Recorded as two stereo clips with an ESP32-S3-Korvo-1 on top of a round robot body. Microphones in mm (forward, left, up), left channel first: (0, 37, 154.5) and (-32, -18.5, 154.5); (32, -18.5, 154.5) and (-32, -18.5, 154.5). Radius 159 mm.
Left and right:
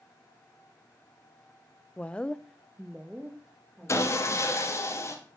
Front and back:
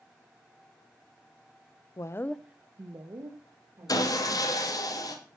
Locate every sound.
2.0 s a woman speaking: 10° right, 0.9 m; by 4.7 s 160° left, 3.5 m
3.9 s sawing: 15° left, 2 m